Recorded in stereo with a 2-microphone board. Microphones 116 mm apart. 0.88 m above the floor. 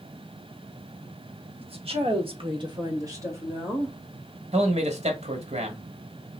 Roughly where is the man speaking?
Right.